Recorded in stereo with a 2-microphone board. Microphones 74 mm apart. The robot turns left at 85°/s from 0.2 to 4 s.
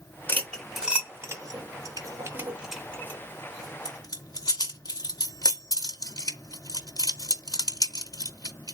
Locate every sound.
0.3 s cutlery clinking: 30° left (ahead or behind), 0.8 m; by 8.8 s 55° left (ahead or behind), 0.8 m